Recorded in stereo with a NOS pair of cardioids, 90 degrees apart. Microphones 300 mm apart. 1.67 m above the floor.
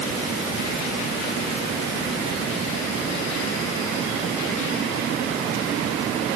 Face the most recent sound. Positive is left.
No sound to turn to.